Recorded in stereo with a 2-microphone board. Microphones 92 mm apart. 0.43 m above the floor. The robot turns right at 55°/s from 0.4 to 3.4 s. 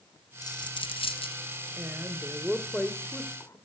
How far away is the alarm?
No alarm in this recording.